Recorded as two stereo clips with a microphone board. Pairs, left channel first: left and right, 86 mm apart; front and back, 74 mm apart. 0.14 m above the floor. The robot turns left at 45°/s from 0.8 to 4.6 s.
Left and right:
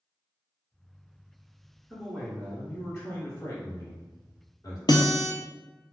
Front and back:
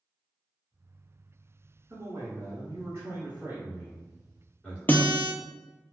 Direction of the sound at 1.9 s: 155° right.